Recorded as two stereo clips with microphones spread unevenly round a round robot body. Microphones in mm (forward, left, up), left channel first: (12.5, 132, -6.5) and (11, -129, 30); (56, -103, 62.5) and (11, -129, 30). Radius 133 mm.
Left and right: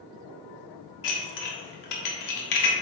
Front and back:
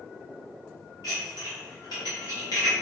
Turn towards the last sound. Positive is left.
turn(degrees=80)